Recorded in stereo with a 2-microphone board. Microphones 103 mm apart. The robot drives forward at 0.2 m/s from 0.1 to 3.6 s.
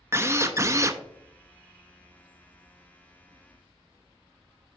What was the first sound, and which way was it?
A drill, 25° right (ahead or behind).